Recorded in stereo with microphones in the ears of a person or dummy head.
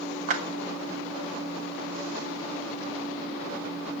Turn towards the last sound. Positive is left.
turn(degrees=-40)  # may be behind; listen again after turning